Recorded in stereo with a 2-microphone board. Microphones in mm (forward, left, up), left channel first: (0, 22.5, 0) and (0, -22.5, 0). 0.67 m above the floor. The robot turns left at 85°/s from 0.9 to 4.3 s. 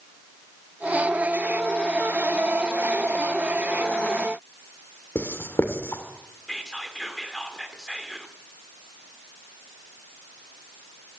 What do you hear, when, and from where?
5.2 s writing: 60° left (ahead or behind), 2 m
6.5 s whispering: 10° left (ahead or behind), 2 m